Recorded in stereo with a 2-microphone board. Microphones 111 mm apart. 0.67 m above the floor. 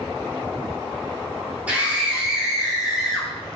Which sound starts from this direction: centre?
A scream, at 1.7 s.